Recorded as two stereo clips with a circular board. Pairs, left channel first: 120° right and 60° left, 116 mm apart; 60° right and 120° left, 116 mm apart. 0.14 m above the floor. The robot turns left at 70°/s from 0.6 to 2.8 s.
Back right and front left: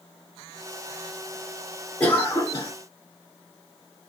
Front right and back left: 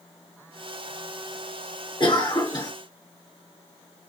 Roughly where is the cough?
Ahead right.